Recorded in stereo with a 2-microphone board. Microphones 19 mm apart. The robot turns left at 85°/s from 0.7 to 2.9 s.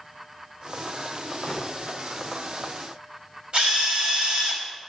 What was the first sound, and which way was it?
A gunshot, 40° left (ahead or behind).